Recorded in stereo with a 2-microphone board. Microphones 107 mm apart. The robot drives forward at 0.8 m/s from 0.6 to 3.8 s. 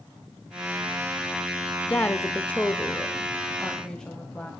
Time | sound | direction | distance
1.9 | a woman speaking | 20° left (ahead or behind) | 0.8 m